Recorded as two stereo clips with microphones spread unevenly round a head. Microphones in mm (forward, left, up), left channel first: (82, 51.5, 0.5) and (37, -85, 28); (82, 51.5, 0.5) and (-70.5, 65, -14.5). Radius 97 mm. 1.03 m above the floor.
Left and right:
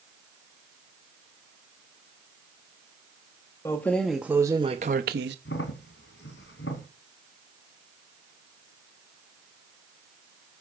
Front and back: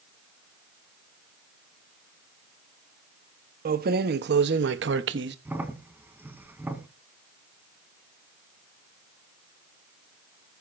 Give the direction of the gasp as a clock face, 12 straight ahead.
I don't hear a gasp.